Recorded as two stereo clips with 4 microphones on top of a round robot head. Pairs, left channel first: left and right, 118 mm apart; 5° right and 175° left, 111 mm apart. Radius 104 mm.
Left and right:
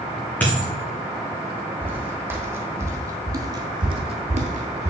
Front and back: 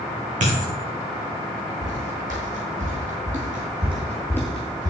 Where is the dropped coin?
165° left, 3 m.